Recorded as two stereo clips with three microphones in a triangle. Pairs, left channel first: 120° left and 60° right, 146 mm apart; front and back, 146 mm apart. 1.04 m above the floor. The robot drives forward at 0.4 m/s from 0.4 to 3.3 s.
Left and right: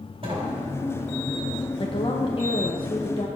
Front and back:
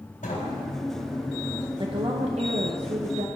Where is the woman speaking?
145° left, 0.7 m; by 3.3 s 165° left, 1.2 m.